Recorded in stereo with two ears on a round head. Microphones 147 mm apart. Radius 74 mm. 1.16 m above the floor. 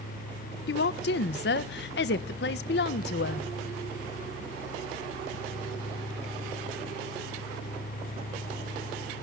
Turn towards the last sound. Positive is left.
turn(degrees=70)  # may be behind; listen again after turning